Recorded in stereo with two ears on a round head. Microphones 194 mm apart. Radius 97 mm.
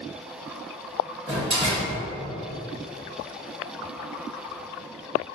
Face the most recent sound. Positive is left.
turn(degrees=-25)  # may be behind; listen again after turning